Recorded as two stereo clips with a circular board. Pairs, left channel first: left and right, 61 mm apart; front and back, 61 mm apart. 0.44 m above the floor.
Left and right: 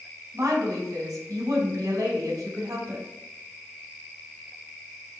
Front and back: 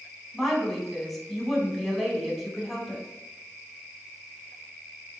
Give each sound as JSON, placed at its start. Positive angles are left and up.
{"t": 0.3, "sound": "a woman speaking", "azimuth_deg": -90, "distance_m": 4.0}